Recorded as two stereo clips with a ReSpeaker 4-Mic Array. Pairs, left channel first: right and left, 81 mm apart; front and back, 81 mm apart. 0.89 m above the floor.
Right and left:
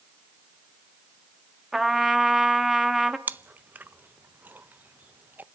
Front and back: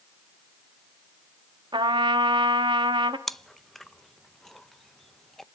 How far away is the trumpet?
About 0.9 m.